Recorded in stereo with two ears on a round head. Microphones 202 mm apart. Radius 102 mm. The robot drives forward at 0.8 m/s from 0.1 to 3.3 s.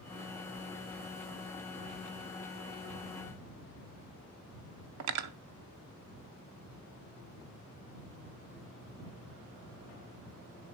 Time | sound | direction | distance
5.0 | cutlery clinking | 85° right | 0.5 m